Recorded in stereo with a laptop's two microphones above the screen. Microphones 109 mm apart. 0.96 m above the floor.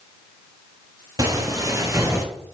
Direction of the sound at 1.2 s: 35° right (ahead or behind).